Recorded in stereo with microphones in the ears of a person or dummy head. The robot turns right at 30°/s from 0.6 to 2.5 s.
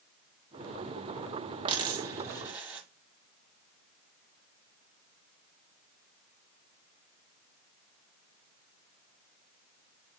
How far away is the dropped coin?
About 0.8 m.